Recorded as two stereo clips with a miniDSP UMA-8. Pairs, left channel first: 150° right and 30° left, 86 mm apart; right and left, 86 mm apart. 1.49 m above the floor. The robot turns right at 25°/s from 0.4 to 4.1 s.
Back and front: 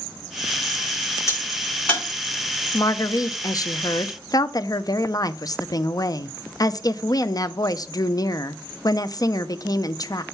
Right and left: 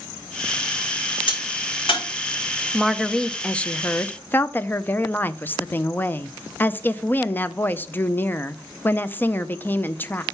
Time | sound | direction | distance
1.3 | a crack | 90° right | 5 m
2.7 | a woman speaking | straight behind | 0.5 m